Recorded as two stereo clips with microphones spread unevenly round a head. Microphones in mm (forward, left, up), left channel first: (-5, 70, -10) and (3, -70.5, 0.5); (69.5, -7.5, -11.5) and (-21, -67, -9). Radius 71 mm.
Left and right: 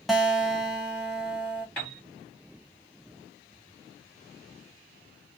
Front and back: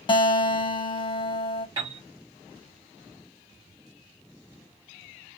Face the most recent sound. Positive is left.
turn(degrees=175)